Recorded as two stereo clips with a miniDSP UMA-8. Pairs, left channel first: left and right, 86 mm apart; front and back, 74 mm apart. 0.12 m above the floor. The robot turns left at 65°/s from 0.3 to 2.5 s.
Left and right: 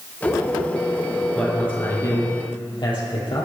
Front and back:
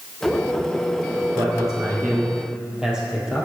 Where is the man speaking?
Straight behind, 4 m; by 3.5 s 105° left, 4 m.